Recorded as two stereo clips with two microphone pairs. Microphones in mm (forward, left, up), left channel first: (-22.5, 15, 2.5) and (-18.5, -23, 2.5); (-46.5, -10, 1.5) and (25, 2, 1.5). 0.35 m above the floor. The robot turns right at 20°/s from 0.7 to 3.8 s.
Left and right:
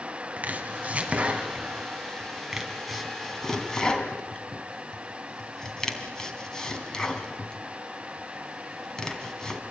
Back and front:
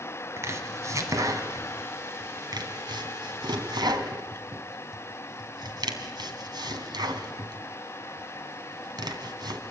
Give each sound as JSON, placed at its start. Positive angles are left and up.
{"t": 0.4, "sound": "chopping", "azimuth_deg": -40, "distance_m": 3.0}